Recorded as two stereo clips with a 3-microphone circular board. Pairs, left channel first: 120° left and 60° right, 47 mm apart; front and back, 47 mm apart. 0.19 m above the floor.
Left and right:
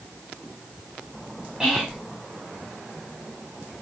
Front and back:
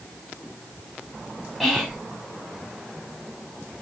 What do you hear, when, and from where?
1.6 s whispering: 80° right, 1.0 m